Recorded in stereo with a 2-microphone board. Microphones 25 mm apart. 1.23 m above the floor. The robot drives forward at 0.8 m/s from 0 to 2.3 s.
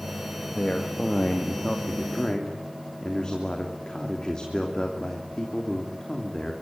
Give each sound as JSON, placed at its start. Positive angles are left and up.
{"t": 0.6, "sound": "a man speaking", "side_deg": 45, "distance_m": 1.7}